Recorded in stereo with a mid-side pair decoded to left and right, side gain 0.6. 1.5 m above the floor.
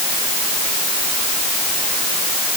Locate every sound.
Only background noise.